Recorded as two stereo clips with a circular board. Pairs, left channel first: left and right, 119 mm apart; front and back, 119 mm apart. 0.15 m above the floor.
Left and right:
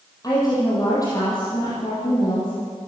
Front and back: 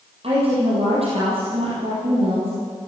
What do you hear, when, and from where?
0.2 s a woman speaking: 145° left, 5 m